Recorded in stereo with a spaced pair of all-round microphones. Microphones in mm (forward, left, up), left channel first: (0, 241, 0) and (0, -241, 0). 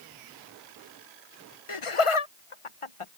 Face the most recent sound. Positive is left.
turn(degrees=80)